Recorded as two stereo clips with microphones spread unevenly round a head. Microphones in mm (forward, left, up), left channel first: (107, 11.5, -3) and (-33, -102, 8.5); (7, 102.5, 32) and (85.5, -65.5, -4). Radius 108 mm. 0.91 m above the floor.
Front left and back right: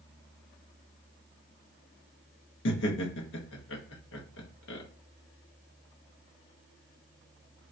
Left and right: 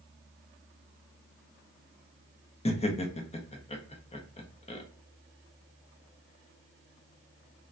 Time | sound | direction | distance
2.6 | laughter | 55° left | 0.8 m